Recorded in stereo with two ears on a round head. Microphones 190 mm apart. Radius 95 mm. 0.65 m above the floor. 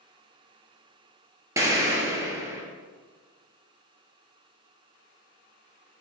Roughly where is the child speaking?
No child speaking in this recording.